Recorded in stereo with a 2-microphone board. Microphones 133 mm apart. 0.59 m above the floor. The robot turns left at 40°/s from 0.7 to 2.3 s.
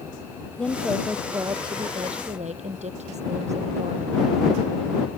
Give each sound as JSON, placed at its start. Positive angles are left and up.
{"t": 0.6, "sound": "a woman speaking", "azimuth_deg": 5}